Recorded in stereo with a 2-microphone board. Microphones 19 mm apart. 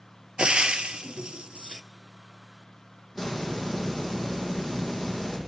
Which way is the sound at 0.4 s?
75° right (ahead or behind).